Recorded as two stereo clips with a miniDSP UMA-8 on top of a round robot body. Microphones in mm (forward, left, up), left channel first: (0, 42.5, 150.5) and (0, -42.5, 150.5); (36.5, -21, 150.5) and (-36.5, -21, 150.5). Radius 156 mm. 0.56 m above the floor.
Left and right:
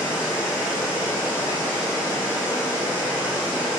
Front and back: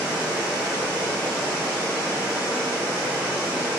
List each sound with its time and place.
0.0 s running water: 130° left, 0.8 m